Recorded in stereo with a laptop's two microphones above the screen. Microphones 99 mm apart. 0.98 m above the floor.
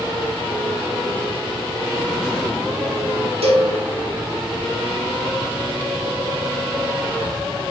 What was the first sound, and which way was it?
A cowbell, 80° right.